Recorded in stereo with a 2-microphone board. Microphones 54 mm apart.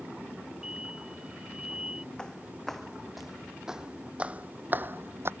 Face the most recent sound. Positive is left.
turn(degrees=-50)  # may be behind; listen again after turning